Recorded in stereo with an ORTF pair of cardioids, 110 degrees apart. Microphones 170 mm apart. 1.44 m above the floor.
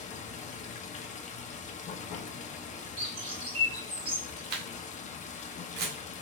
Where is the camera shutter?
65° right, 1.6 m.